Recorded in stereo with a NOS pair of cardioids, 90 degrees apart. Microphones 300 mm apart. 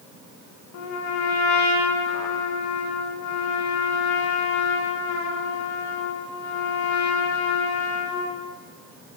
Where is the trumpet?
70° left, 1.0 m.